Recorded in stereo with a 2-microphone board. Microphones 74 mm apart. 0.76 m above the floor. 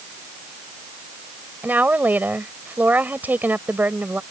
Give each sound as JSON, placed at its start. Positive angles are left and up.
{"t": 1.6, "sound": "a woman speaking", "side_deg": -25}